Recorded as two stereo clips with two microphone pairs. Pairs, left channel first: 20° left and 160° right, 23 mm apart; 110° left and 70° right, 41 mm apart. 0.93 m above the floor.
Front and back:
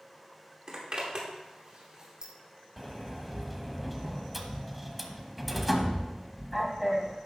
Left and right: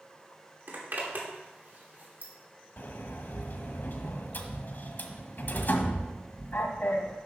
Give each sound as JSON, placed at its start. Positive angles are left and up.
{"t": 0.7, "sound": "a zipper", "azimuth_deg": -110, "distance_m": 2.5}
{"t": 2.8, "sound": "a sliding door", "azimuth_deg": 115, "distance_m": 1.1}